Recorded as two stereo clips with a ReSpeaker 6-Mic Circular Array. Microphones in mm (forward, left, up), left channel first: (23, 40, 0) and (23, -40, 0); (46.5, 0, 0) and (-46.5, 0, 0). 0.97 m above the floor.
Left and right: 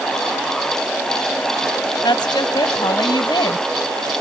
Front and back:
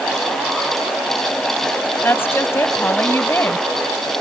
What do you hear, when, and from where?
2.0 s a woman speaking: 65° left